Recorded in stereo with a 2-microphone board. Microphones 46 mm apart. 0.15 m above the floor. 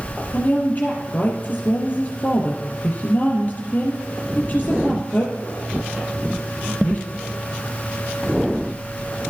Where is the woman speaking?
35° left (ahead or behind), 3.5 m.